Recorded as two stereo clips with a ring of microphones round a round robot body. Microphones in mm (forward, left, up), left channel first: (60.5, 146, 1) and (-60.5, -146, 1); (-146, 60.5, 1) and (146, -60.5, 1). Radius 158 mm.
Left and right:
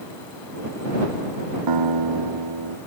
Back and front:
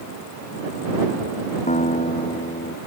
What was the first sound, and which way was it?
A guitar, 135° right.